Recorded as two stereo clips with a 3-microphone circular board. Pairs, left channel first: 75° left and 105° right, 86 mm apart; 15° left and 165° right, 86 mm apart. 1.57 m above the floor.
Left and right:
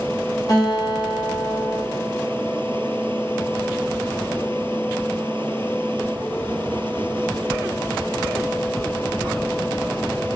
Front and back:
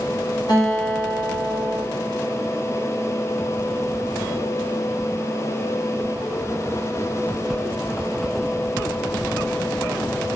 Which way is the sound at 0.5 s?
40° left.